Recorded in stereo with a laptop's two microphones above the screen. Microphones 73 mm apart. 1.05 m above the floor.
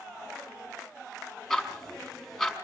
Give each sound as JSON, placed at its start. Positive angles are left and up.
{"t": 1.5, "sound": "ticking", "side_deg": 0, "distance_m": 4.5}